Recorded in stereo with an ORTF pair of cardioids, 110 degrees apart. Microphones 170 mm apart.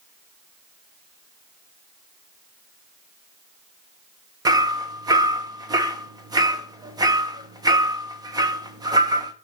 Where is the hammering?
25° right, 1.1 m.